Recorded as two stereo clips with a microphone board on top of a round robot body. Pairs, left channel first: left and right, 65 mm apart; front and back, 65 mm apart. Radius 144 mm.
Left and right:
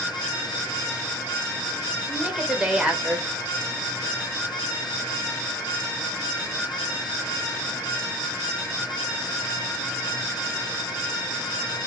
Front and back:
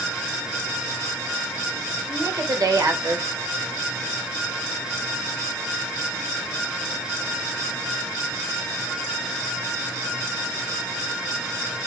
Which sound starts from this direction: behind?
A woman speaking, at 2.1 s.